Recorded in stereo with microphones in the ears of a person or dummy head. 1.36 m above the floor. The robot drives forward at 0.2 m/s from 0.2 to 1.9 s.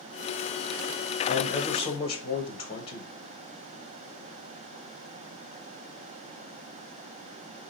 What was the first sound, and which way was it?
A man speaking, 30° left (ahead or behind).